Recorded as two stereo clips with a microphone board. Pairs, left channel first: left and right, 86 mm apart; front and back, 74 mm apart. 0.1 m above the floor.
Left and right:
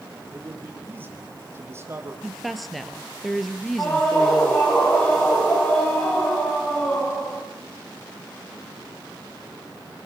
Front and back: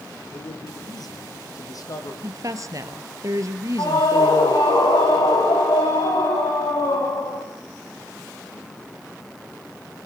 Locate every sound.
0.3 s a man speaking: 20° right, 5.5 m; by 2.1 s 35° right, 5 m
2.2 s a woman speaking: straight behind, 2 m
3.8 s a scream: 20° left, 7.5 m